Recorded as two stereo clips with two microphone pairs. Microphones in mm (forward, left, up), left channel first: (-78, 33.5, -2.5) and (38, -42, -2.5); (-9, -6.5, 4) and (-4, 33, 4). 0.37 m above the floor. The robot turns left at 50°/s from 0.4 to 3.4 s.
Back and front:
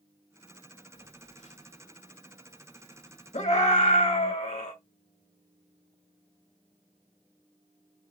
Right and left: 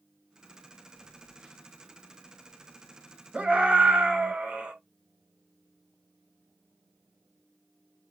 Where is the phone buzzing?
175° left, 2 m; by 4.3 s 50° left, 2 m.